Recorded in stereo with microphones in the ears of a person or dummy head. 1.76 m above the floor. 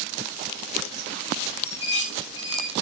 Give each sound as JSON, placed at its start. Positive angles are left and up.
{"t": 1.6, "sound": "dishes clattering", "side_deg": 40, "distance_m": 7.5}